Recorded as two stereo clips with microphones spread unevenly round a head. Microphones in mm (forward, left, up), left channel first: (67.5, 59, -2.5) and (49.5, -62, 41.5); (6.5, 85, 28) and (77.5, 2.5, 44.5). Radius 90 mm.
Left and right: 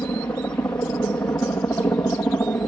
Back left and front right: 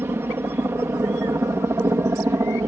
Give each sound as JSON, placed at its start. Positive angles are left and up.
{"t": 0.0, "sound": "a helicopter", "azimuth_deg": 20}